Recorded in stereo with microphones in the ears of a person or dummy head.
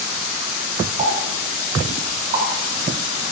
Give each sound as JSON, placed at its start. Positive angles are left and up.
{"t": 1.0, "sound": "a pop", "side_deg": -35, "distance_m": 7.0}